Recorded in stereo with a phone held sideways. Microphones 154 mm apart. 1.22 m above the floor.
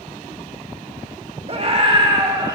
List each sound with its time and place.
1.5 s a scream: 40° right (ahead or behind), 2 m; by 2.6 s 25° right (ahead or behind), 2.0 m